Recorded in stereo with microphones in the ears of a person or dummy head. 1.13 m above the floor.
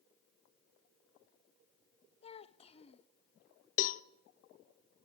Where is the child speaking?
35° left (ahead or behind), 0.8 m.